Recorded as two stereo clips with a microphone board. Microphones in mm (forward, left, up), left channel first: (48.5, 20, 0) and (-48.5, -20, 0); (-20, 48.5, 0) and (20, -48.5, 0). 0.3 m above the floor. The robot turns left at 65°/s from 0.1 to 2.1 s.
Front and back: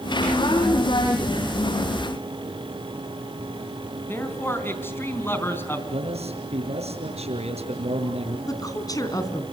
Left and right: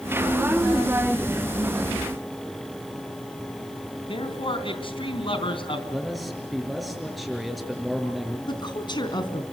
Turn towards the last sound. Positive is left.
turn(degrees=75)